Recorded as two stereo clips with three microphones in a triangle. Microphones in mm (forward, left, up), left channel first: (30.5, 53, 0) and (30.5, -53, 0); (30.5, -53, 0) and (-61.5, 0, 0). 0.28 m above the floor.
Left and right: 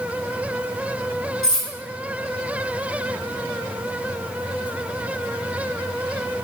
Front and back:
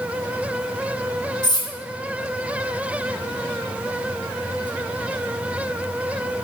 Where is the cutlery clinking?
10° left, 1.2 m.